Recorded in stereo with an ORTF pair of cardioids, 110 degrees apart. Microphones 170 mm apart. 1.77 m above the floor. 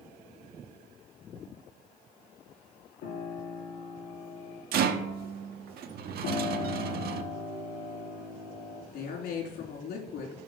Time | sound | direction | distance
3.0 | a piano | 65° left | 3.5 m
4.7 | a rattle | 65° right | 1.0 m
6.2 | a piano | 65° left | 3.5 m
8.9 | a woman speaking | 70° left | 3.5 m